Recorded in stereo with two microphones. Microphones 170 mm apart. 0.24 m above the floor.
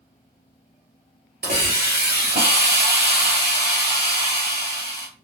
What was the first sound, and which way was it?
A hiss, 75° right (ahead or behind).